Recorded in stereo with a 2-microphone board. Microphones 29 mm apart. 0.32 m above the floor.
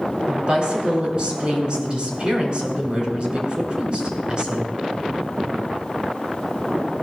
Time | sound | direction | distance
0.3 | a woman speaking | 35° right (ahead or behind) | 4 m